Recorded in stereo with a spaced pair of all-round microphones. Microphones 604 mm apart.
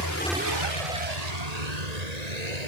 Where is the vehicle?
40° left (ahead or behind); by 2.7 s 90° right.